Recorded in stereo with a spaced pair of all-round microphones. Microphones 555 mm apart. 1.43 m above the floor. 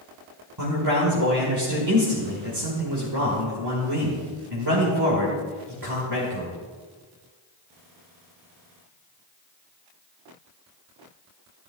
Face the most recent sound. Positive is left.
turn(degrees=-45)  # may be behind; listen again after turning